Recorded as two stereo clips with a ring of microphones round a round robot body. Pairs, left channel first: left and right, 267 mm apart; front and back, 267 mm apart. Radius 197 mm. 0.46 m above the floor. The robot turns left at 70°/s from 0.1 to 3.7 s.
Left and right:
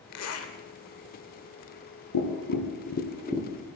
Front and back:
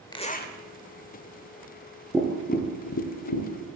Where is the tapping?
95° left, 2.5 m; by 3.5 s straight ahead, 2.5 m.